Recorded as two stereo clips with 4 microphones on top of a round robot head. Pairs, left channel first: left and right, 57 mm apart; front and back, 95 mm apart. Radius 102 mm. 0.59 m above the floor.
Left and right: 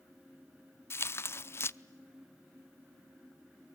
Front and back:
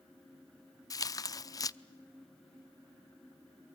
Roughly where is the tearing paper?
Ahead left.